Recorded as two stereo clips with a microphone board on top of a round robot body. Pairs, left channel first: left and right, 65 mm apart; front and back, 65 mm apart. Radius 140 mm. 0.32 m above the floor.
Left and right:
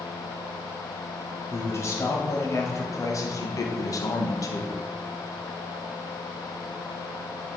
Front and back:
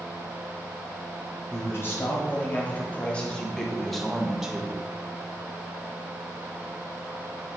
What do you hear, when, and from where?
1.5 s a man speaking: 45° left, 2 m; by 4.8 s 105° left, 1.5 m